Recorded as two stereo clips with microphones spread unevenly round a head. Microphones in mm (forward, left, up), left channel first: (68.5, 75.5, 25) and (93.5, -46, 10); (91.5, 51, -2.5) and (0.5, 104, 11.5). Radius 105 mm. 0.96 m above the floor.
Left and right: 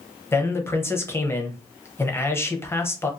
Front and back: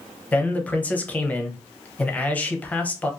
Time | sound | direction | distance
0.3 | a man speaking | 30° left | 0.7 m